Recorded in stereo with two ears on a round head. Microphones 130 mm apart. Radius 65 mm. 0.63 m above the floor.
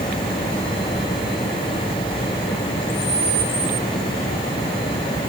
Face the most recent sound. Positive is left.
No sound to turn to.